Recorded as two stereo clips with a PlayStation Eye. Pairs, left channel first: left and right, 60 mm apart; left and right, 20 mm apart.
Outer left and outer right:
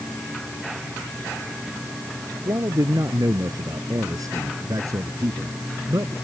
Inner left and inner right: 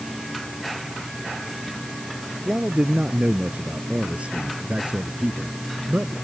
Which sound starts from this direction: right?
A man speaking, at 2.5 s.